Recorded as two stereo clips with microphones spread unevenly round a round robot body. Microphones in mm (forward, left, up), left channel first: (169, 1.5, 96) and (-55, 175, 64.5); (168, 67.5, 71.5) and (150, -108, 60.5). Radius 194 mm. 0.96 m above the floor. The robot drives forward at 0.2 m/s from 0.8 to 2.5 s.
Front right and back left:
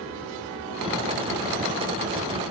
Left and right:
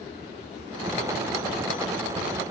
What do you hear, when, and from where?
Only background noise.